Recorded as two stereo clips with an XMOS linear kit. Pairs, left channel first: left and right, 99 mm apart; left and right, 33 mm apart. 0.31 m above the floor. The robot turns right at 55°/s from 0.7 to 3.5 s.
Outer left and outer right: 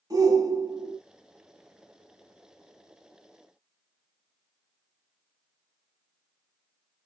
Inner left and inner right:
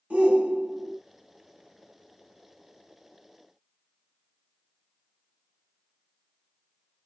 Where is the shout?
40° right (ahead or behind), 1.2 m; by 1.0 s 35° right (ahead or behind), 1.2 m.